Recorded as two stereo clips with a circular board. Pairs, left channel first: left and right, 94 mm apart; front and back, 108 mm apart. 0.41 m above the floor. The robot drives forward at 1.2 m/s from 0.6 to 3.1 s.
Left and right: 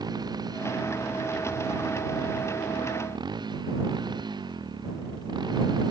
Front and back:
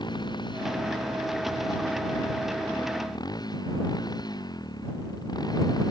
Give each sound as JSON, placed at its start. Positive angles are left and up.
{"t": 0.0, "sound": "a motorcycle", "azimuth_deg": -45}